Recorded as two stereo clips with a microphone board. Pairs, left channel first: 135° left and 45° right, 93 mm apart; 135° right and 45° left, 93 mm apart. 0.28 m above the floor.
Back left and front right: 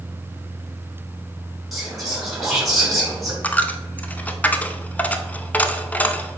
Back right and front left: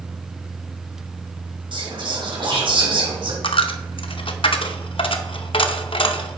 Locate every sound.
1.7 s whispering: 40° left, 3.5 m
3.4 s a dropped coin: 150° right, 0.6 m